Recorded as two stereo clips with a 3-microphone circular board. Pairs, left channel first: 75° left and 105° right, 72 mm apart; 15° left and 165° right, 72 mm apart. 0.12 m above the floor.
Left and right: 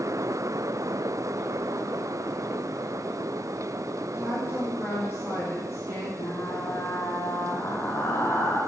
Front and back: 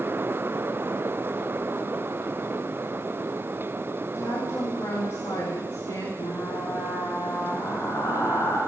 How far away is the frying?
About 5 m.